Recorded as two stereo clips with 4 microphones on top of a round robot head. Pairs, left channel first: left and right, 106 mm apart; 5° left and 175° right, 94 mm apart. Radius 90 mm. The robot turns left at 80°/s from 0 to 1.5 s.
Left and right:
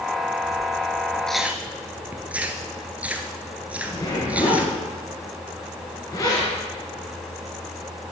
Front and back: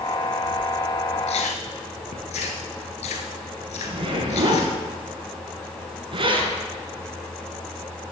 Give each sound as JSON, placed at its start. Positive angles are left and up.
{"t": 1.3, "sound": "chewing", "azimuth_deg": 5, "distance_m": 1.3}
{"t": 3.8, "sound": "a zipper", "azimuth_deg": 155, "distance_m": 3.0}